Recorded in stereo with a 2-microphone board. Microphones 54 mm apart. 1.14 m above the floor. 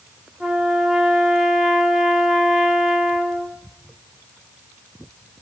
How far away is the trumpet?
About 0.6 m.